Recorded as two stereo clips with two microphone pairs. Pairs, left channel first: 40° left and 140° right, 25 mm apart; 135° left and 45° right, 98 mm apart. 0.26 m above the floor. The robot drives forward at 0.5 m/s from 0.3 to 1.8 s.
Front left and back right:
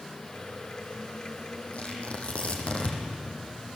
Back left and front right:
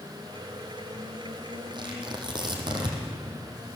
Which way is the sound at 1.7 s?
5° right.